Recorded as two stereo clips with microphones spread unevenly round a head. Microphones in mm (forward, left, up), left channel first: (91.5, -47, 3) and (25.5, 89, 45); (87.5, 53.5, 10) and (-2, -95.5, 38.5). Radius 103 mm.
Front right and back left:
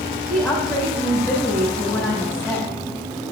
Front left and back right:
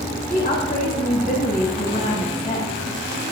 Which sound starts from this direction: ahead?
A woman speaking, at 0.3 s.